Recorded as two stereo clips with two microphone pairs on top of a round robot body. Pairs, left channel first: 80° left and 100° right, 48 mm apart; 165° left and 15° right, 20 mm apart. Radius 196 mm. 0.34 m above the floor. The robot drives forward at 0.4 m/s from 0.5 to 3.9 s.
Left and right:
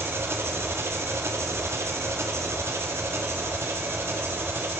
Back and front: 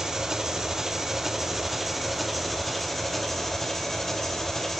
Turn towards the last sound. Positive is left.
turn(degrees=-125)